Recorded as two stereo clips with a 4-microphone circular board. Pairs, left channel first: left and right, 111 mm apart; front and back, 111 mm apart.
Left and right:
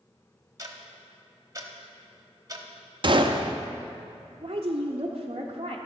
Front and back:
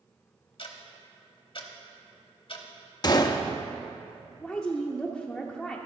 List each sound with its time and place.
0.6 s ticking: 30° right, 1.0 m
3.0 s a gunshot: 50° right, 0.5 m
4.4 s a woman speaking: 85° right, 0.7 m